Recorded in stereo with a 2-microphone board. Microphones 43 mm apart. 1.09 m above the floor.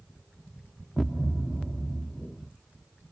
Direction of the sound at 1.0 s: 5° left (ahead or behind).